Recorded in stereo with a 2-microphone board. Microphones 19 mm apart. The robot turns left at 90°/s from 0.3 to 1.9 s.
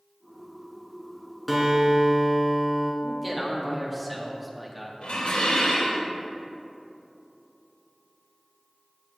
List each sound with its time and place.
1.5 s a guitar: 5° left, 2.5 m; by 2.9 s 35° right, 2.5 m
3.0 s a man speaking: 5° right (ahead or behind), 1.7 m
5.0 s dishes clattering: 80° left, 3 m